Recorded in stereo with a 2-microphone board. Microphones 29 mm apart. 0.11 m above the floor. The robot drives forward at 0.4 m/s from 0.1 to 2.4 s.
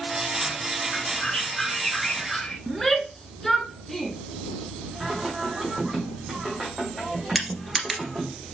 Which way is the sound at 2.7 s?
5° left (ahead or behind).